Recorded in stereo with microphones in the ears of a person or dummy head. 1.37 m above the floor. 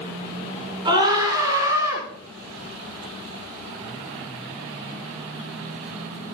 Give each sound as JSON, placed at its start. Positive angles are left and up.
{"t": 0.8, "sound": "a scream", "side_deg": -25, "distance_m": 5.0}